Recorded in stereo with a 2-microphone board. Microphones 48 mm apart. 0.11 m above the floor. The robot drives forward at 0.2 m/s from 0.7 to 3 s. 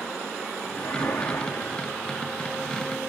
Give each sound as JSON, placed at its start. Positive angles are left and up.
{"t": 0.8, "sound": "a whoosh", "side_deg": 80, "distance_m": 2.5}